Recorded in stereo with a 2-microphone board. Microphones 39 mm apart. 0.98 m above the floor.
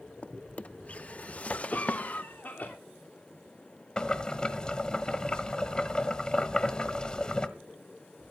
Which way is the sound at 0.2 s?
40° left (ahead or behind).